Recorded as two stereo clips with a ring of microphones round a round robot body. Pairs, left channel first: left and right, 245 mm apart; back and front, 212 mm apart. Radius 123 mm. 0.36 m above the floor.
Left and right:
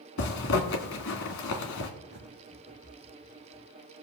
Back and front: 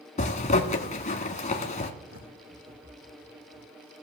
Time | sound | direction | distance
0.2 | a zipper | 125° left | 1.6 m
2.1 | a bird | 40° right | 3.5 m